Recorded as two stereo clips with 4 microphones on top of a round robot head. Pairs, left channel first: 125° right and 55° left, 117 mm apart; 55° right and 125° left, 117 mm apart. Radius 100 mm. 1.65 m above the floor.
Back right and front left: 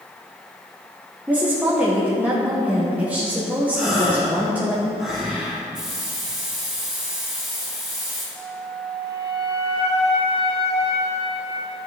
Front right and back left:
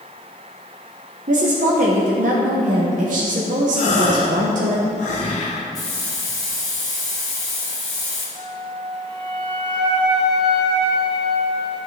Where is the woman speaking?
135° left, 1.1 m.